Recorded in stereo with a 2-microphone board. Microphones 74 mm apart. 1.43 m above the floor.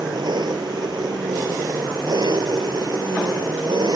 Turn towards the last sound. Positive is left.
turn(degrees=-80)